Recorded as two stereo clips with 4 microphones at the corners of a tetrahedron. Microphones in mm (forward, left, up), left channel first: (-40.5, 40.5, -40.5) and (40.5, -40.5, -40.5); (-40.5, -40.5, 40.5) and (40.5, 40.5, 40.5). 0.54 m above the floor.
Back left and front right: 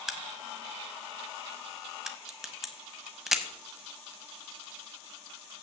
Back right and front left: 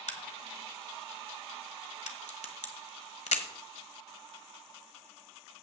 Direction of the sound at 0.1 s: 130° right.